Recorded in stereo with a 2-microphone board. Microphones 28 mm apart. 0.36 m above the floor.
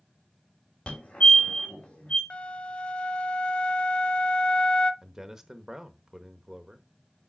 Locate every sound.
0.9 s a fire alarm: 50° left (ahead or behind), 3 m
2.3 s a flute: 45° left (ahead or behind), 0.5 m
5.0 s a man speaking: 15° right (ahead or behind), 0.8 m